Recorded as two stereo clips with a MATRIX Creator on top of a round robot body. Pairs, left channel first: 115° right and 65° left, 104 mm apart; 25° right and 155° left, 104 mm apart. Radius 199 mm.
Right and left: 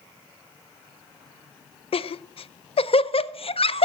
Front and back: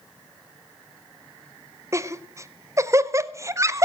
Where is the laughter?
140° right, 0.8 m.